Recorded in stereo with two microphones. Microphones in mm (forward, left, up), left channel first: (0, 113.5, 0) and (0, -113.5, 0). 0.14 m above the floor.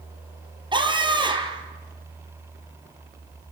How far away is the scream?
About 3 m.